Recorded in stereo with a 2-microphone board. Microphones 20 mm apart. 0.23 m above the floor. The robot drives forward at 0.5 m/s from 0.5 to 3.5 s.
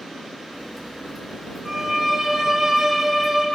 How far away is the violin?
About 3 m.